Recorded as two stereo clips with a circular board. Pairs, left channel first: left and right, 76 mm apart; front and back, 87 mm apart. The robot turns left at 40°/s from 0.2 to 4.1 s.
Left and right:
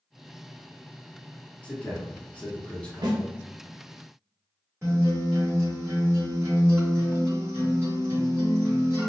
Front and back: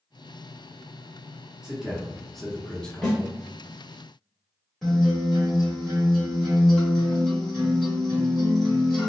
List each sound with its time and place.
1.6 s a man speaking: 115° left, 0.7 m; by 3.4 s 45° left, 0.7 m
3.0 s a snare drum: 80° right, 1.0 m; by 3.2 s 85° right, 1.0 m
4.8 s a guitar: 85° right, 1.4 m